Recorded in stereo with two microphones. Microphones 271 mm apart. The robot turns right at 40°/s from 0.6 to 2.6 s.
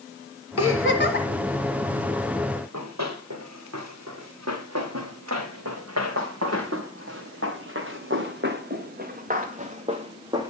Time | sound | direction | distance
0.6 | a giggle | 55° left (ahead or behind) | 2 m
2.5 | running footsteps | 85° right | 4.5 m